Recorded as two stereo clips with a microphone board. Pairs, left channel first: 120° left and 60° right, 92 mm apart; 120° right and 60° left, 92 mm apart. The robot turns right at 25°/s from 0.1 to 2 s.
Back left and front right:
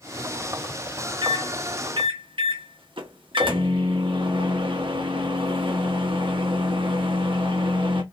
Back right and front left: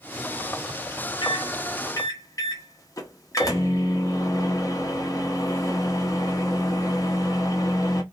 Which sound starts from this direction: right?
A microwave, at 1.2 s.